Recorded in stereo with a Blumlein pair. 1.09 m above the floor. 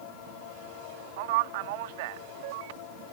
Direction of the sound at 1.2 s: 50° right.